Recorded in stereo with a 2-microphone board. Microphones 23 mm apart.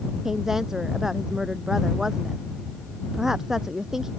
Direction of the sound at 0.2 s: 15° right (ahead or behind).